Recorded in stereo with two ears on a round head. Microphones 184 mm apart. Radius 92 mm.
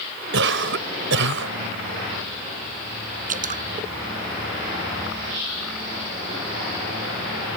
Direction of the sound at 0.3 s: 60° right (ahead or behind).